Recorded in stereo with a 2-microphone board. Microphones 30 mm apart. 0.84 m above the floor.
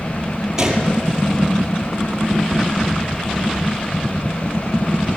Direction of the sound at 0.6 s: 15° right (ahead or behind).